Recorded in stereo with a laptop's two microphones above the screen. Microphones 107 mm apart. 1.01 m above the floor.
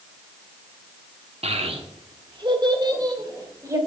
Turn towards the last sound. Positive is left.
turn(degrees=-30)  # may be behind; listen again after turning